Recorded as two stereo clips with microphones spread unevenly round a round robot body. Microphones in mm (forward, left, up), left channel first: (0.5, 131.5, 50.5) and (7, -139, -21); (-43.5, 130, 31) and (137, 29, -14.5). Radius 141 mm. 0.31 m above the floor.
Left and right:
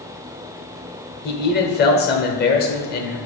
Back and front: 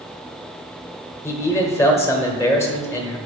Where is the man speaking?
60° left, 1.1 m.